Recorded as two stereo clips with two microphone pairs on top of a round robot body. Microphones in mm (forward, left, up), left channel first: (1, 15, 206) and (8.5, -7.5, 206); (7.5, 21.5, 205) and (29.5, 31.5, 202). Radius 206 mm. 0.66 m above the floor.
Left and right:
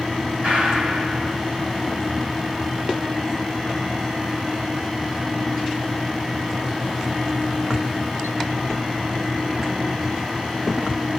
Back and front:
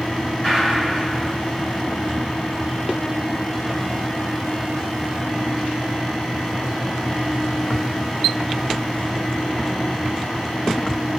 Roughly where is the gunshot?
Right.